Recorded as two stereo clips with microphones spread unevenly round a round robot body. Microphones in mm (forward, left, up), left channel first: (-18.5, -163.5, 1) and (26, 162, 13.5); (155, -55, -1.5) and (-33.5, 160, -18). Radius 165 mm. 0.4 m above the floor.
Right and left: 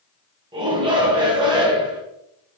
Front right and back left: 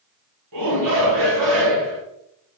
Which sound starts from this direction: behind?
A shout, at 0.5 s.